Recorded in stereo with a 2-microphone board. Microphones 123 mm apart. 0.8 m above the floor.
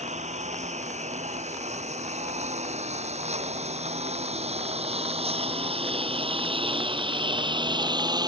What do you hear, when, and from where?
0.0 s a lawn mower: 75° right (ahead or behind); by 8.3 s 35° right (ahead or behind)